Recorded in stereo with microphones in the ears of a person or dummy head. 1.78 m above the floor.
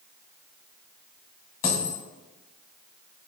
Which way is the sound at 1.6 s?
20° left (ahead or behind).